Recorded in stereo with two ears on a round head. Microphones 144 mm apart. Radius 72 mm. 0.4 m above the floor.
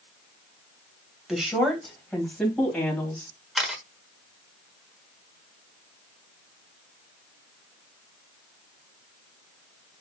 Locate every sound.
1.3 s a woman speaking: 5° right (ahead or behind), 2 m; by 3.3 s 5° left (ahead or behind), 3 m
3.5 s a camera shutter: 5° right (ahead or behind), 1.1 m